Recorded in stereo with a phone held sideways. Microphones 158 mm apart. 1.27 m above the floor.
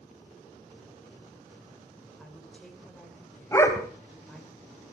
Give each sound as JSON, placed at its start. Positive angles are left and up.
{"t": 2.2, "sound": "a woman speaking", "side_deg": 5, "distance_m": 5.5}
{"t": 3.5, "sound": "a dog barking", "side_deg": 15, "distance_m": 2.0}